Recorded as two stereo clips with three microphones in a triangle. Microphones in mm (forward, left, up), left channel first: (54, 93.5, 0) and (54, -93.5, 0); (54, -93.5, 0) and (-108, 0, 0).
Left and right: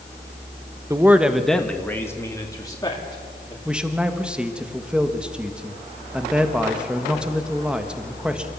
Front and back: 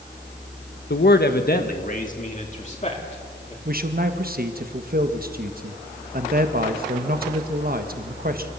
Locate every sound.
0.9 s a man speaking: 15° right, 1.0 m; by 3.5 s 25° left, 3 m
3.6 s a man speaking: 175° right, 1.4 m